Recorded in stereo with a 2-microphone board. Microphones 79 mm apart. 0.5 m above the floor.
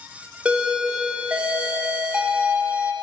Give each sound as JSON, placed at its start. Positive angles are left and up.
{"t": 0.5, "sound": "a doorbell", "side_deg": -15, "distance_m": 1.3}